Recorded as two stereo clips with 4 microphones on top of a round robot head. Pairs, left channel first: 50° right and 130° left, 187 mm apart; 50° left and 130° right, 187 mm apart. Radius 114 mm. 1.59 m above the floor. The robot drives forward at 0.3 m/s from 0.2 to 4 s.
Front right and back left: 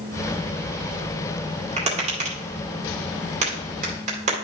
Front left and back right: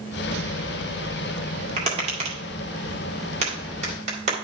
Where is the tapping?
Straight behind, 1.6 m.